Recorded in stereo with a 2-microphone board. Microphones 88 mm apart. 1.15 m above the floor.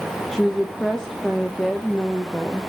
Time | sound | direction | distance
0.3 | a woman speaking | 5° left (ahead or behind) | 0.9 m